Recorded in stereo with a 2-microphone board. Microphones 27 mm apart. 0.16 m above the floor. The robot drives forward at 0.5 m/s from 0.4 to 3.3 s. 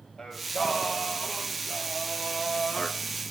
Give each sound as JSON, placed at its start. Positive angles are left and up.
{"t": 0.2, "sound": "singing", "side_deg": 15, "distance_m": 1.8}